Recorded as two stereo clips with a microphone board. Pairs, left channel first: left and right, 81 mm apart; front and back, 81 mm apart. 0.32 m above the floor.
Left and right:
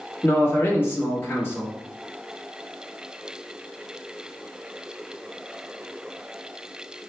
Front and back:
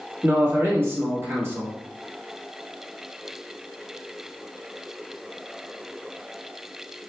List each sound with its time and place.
0.2 s a man speaking: 135° left, 1.2 m